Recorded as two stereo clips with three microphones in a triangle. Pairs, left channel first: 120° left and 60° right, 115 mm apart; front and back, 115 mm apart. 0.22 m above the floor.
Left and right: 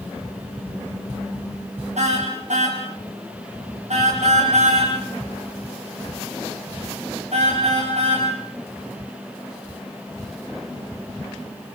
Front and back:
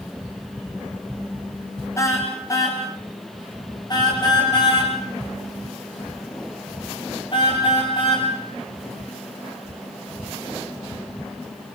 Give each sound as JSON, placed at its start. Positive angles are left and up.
{"t": 2.0, "sound": "a car horn", "azimuth_deg": -65, "distance_m": 5.5}